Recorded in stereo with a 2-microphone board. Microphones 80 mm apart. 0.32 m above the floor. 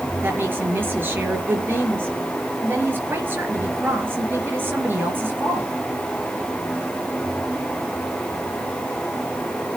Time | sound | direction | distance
0.2 | a woman speaking | 25° right (ahead or behind) | 5 m